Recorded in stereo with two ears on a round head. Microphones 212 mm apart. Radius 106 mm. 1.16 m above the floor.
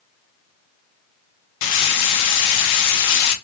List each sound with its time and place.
1.6 s frying: 80° left, 0.7 m